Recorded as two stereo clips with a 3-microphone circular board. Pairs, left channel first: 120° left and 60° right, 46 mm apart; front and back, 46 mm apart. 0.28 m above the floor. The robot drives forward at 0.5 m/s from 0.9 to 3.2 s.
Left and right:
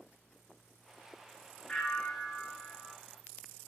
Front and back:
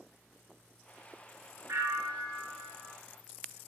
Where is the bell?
165° right, 1.4 m; by 2.9 s 170° right, 2 m.